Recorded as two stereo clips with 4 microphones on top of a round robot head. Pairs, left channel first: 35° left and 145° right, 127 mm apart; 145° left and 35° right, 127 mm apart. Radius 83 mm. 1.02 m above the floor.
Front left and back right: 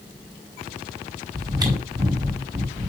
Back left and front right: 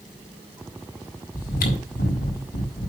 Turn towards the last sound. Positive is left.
turn(degrees=150)